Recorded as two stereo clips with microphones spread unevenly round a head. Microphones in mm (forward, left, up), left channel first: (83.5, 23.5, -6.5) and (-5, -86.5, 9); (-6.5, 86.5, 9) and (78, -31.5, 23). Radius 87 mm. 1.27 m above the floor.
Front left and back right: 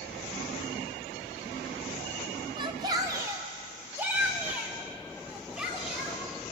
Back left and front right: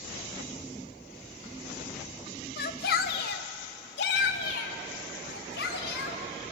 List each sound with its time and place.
2.6 s a shout: 165° left, 1.3 m; by 6.2 s 145° left, 4 m